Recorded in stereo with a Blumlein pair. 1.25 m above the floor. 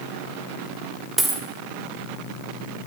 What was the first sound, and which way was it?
A dropped coin, 15° right.